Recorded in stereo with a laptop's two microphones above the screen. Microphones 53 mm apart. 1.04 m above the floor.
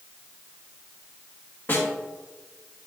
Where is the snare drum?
40° left (ahead or behind), 2.5 m.